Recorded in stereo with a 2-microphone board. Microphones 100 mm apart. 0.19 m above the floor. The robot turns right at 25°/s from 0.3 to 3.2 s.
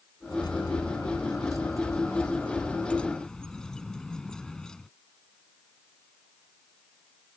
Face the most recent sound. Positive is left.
turn(degrees=170)